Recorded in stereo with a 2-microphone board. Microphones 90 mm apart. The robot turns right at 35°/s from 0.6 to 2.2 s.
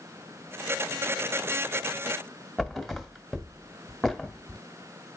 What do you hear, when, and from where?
2.6 s a thud: centre (ahead or behind), 1.6 m